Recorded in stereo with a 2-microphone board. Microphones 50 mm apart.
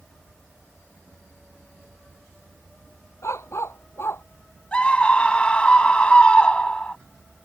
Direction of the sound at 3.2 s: 65° left (ahead or behind).